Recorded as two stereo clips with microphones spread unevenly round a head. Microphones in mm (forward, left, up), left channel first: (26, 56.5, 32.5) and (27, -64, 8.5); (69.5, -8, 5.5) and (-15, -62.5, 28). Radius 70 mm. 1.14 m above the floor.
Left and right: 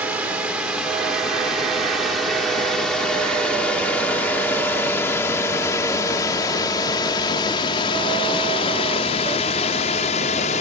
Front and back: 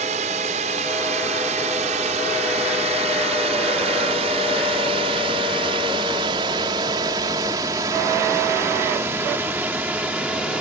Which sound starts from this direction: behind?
A drone, at 0.0 s.